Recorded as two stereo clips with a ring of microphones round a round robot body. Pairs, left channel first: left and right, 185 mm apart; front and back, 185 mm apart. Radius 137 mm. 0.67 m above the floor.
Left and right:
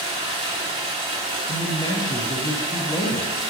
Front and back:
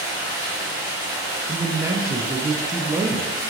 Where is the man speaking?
125° left, 0.5 m.